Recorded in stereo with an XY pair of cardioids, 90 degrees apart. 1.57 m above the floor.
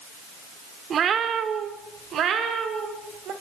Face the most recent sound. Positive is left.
turn(degrees=-80)